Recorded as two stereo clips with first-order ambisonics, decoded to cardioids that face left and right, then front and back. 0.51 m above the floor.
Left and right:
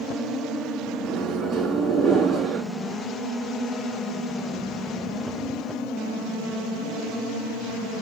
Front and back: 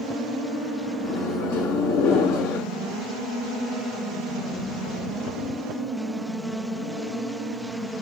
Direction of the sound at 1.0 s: 10° right.